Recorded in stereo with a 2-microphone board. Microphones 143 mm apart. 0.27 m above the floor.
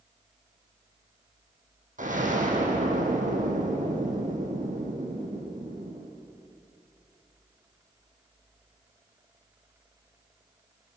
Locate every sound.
2.0 s an explosion: 65° right (ahead or behind), 3 m